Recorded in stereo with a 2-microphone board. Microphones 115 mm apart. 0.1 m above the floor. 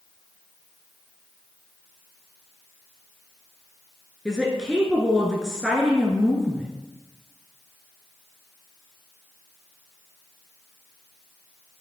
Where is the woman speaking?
5° right (ahead or behind), 1.2 m.